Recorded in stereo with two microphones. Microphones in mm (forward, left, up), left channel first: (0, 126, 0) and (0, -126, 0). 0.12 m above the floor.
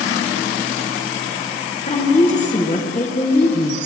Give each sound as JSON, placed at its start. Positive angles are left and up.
{"t": 1.9, "sound": "a woman speaking", "side_deg": 30, "distance_m": 1.8}